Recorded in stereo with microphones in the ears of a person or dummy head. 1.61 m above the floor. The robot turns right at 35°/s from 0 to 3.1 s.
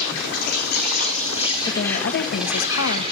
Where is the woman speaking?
40° left, 2.0 m; by 3.0 s 90° left, 2.0 m.